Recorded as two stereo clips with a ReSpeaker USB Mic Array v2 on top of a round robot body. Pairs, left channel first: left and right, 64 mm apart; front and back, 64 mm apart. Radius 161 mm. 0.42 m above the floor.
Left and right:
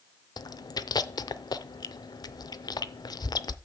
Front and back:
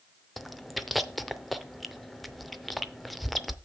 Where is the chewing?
90° left, 0.5 m.